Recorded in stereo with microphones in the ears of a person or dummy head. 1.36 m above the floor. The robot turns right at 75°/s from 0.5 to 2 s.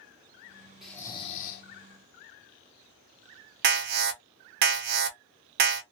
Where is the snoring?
Straight ahead, 0.8 m; by 1.6 s 60° left, 0.8 m.